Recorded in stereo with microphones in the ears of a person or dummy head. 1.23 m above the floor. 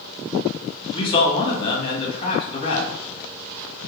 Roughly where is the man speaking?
Left.